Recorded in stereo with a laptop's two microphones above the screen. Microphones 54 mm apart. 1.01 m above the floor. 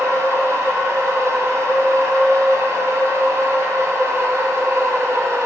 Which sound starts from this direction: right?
A machine running, at 0.0 s.